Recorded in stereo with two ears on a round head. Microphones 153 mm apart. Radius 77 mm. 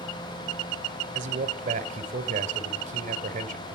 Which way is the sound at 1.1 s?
45° right (ahead or behind).